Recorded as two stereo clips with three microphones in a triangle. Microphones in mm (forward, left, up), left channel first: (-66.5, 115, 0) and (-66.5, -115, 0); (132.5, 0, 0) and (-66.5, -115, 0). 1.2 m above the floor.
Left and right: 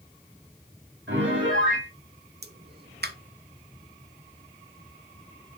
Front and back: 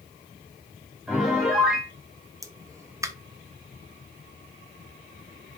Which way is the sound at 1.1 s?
60° right.